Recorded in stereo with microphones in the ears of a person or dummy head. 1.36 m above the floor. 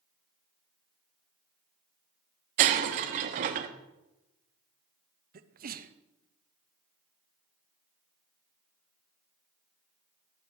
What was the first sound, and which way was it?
Breaking glass, 40° right (ahead or behind).